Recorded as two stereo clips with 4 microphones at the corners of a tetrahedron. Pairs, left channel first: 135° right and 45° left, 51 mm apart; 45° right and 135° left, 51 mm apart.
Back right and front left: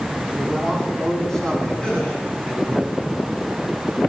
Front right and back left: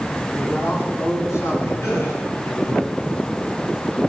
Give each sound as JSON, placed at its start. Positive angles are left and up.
{"t": 0.3, "sound": "a man speaking", "azimuth_deg": -60, "distance_m": 7.5}
{"t": 1.8, "sound": "a gasp", "azimuth_deg": -65, "distance_m": 6.0}